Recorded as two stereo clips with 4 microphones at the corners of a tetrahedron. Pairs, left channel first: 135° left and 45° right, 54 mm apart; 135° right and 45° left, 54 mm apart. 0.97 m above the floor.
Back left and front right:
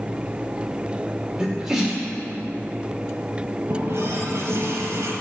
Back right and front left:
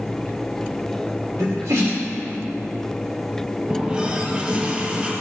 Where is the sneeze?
40° left, 2.5 m.